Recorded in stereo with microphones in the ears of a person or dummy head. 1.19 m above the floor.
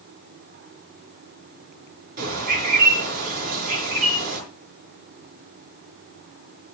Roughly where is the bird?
Right.